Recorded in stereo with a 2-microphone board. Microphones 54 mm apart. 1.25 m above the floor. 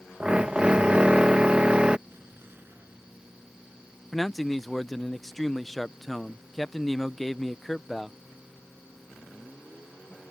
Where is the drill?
20° right (ahead or behind).